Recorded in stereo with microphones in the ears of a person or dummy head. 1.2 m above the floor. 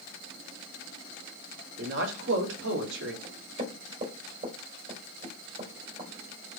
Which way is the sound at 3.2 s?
40° right (ahead or behind).